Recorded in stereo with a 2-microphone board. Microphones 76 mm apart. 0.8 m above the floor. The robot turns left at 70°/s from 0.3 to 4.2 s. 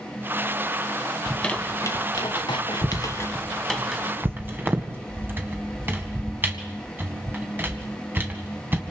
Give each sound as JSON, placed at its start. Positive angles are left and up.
{"t": 1.3, "sound": "a squeak", "side_deg": 0, "distance_m": 1.9}